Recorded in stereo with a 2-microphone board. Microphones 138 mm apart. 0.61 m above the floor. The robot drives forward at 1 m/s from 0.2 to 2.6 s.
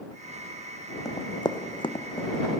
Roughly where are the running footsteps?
Left.